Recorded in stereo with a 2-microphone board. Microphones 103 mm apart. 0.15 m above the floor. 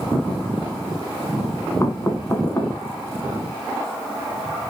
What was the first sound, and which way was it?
Knocking, 30° left (ahead or behind).